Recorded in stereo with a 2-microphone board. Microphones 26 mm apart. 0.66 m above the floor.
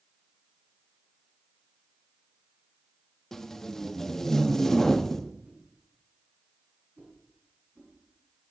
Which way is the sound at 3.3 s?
15° left (ahead or behind).